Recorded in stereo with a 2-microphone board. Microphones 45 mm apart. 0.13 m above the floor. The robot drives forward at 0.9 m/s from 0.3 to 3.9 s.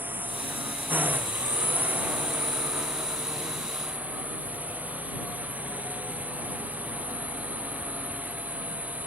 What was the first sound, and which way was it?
A drone, 45° right (ahead or behind).